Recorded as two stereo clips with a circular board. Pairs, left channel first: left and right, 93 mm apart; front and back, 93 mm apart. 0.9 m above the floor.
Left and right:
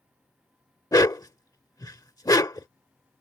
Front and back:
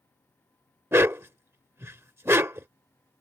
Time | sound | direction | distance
0.9 | a dog barking | 125° left | ?